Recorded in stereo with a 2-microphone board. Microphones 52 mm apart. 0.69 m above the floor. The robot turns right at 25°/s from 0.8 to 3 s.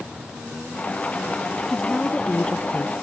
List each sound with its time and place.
1.7 s a woman speaking: straight ahead; by 3.0 s 35° left